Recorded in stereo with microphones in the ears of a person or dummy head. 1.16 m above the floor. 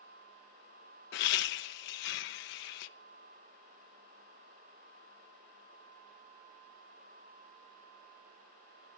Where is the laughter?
65° left (ahead or behind), 0.6 m.